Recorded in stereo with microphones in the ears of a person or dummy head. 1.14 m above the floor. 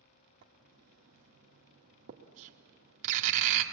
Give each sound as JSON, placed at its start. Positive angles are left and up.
{"t": 0.4, "sound": "writing", "side_deg": -40, "distance_m": 1.9}